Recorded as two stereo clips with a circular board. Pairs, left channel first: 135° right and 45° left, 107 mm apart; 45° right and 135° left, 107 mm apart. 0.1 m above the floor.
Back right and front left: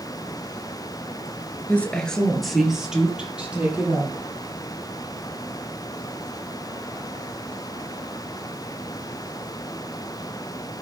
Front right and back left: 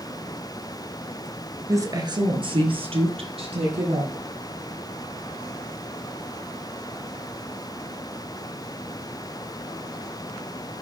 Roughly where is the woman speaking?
Behind.